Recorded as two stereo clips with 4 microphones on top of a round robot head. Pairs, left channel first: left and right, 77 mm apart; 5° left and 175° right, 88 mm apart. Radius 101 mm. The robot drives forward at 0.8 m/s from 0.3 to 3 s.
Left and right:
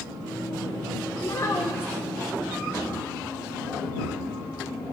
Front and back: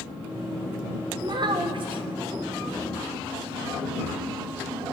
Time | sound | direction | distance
1.2 | a child speaking | 140° left | 0.8 m